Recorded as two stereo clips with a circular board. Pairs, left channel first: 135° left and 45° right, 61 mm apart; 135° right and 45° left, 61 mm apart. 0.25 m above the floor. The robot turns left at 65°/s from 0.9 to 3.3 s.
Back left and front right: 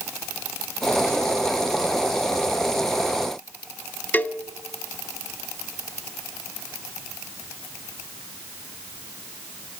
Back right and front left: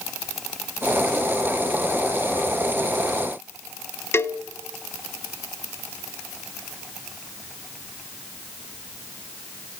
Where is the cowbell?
170° right, 0.8 m.